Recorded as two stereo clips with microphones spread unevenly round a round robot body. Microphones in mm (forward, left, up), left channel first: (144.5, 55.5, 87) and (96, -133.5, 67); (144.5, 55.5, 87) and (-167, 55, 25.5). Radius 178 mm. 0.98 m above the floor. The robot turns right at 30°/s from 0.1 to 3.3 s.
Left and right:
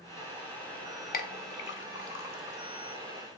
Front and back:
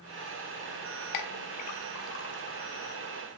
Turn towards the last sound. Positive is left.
turn(degrees=90)